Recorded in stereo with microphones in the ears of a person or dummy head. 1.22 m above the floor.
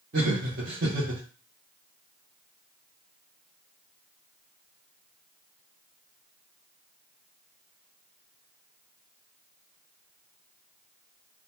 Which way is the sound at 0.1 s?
50° right (ahead or behind).